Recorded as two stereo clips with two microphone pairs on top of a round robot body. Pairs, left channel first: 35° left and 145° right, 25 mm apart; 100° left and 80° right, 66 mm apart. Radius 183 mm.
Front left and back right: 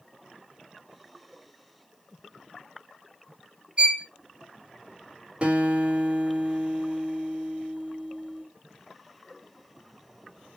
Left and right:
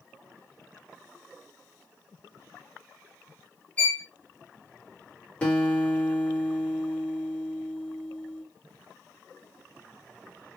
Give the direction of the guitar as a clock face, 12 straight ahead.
6 o'clock.